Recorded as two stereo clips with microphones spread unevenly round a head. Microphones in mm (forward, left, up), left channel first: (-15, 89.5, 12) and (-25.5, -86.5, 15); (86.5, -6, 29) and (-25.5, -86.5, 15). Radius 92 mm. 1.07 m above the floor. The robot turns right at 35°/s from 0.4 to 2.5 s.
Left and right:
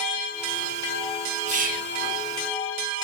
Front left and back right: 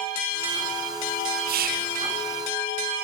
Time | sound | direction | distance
1.5 | whispering | 145° right | 0.9 m